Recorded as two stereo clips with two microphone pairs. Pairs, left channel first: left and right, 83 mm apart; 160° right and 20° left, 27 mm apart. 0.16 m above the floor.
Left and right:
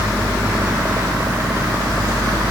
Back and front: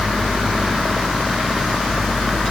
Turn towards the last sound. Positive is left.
No sound to turn to.